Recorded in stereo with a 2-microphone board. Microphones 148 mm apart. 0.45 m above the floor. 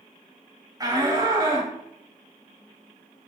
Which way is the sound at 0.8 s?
25° right (ahead or behind).